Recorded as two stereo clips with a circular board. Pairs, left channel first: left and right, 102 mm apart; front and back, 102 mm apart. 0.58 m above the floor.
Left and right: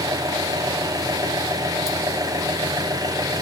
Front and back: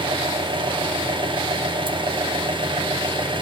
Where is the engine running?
145° right, 2 m.